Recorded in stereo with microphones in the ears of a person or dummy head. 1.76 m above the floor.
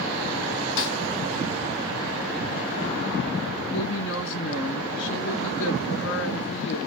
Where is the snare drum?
60° left (ahead or behind), 2.5 m.